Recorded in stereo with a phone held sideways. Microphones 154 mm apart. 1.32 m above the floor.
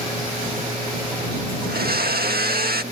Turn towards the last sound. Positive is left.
turn(degrees=-80)